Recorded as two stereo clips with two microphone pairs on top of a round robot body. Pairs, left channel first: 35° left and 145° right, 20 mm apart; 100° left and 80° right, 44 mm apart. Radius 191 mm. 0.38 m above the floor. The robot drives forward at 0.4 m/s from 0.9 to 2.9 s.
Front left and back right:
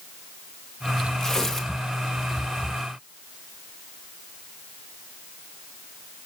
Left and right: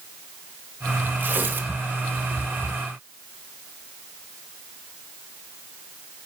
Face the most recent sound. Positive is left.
turn(degrees=-70)